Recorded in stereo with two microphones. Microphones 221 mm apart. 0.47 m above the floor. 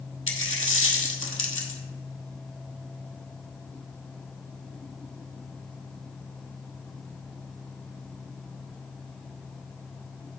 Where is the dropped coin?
70° left (ahead or behind), 1.1 m.